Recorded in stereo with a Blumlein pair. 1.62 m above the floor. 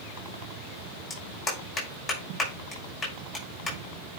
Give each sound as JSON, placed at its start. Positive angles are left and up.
{"t": 1.1, "sound": "a clap", "azimuth_deg": 20, "distance_m": 6.0}